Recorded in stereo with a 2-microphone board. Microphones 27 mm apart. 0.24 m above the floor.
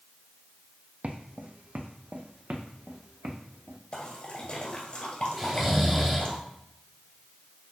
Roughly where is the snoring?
Centre.